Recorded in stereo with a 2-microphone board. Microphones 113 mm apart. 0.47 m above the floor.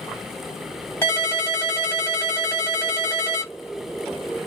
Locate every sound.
1.0 s a ringtone: 20° left (ahead or behind), 1.4 m